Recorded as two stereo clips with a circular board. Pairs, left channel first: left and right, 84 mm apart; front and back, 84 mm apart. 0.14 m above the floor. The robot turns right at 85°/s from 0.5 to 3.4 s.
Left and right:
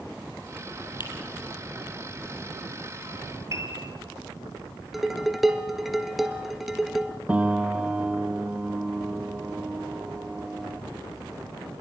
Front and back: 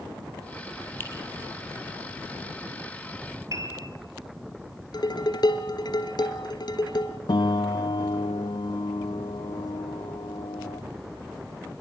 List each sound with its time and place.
1.0 s a finger snap: 60° left, 4.5 m; by 1.1 s 70° left, 4.5 m
3.5 s a piano: 135° right, 3.5 m
4.9 s dishes clattering: 5° right, 1.6 m
7.3 s a piano: 15° right, 1.3 m